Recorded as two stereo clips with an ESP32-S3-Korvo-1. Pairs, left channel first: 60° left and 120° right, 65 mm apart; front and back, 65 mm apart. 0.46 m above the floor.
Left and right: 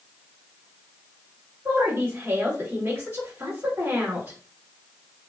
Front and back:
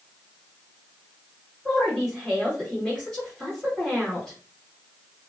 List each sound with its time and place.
1.6 s a woman speaking: 95° right, 2 m